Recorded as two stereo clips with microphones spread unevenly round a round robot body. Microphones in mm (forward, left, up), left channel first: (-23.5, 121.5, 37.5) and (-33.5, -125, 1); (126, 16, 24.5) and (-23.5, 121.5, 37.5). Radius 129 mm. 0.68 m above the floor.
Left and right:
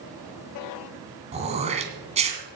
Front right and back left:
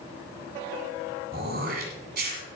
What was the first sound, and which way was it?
Throat clearing, 160° right.